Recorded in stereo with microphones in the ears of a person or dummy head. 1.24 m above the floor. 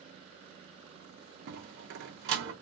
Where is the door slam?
55° right (ahead or behind), 0.7 m.